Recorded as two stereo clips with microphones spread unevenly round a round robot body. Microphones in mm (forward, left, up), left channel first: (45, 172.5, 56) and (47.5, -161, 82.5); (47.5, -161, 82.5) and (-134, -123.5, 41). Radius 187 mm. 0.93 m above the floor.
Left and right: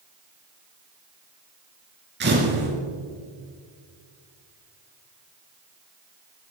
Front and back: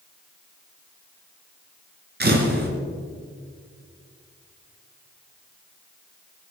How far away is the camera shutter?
About 3 m.